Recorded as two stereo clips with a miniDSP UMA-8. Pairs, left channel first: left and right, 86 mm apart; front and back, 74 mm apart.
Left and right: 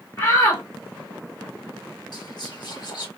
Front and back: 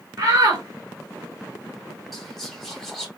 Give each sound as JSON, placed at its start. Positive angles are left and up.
{"t": 0.2, "sound": "a shout", "azimuth_deg": 140, "distance_m": 1.7}
{"t": 2.1, "sound": "whispering", "azimuth_deg": 85, "distance_m": 1.9}